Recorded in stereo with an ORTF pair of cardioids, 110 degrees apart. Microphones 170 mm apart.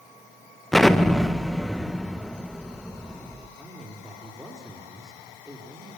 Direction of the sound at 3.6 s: Straight ahead.